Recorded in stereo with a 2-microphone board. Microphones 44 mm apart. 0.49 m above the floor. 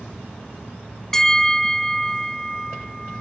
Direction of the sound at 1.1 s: 10° left (ahead or behind).